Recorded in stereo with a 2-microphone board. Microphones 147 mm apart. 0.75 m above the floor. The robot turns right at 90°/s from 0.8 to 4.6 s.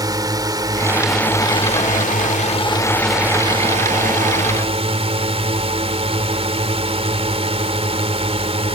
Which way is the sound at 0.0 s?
30° right.